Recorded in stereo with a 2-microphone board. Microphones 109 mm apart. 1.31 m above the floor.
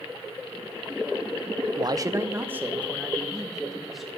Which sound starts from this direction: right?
A man speaking, at 1.8 s.